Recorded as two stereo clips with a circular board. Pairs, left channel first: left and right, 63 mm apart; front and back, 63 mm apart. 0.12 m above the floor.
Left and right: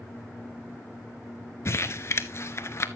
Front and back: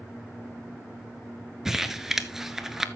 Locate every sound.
1.6 s crumpling: 100° left, 0.6 m